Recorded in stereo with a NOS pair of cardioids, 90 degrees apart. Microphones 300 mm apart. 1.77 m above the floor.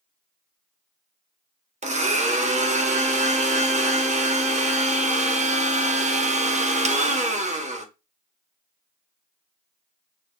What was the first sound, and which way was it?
A blender, 25° right.